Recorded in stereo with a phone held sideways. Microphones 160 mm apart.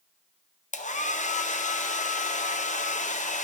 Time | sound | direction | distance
0.7 | a hair dryer | 50° left (ahead or behind) | 0.5 m